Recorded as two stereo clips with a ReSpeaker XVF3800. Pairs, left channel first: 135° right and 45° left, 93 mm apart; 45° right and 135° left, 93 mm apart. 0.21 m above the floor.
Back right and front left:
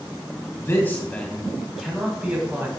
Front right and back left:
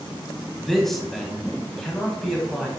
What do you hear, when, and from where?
0.6 s a man speaking: 130° right, 1.3 m; by 2.7 s 35° left, 1.3 m